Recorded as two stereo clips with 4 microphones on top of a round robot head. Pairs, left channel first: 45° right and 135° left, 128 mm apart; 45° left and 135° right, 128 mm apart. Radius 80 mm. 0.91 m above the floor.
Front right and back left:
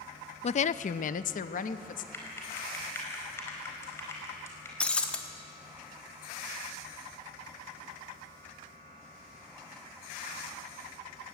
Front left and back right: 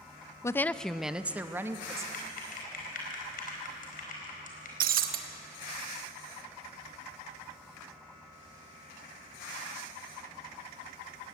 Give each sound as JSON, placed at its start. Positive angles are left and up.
{"t": 0.4, "sound": "a woman speaking", "azimuth_deg": -20, "distance_m": 0.5}
{"t": 2.1, "sound": "typing on a keyboard", "azimuth_deg": 25, "distance_m": 4.5}
{"t": 4.8, "sound": "breaking glass", "azimuth_deg": -130, "distance_m": 1.2}